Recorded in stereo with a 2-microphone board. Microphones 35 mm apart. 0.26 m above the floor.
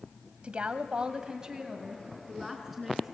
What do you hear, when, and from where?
0.4 s a woman speaking: 35° right (ahead or behind), 1.4 m; by 3.1 s centre (ahead or behind), 3.5 m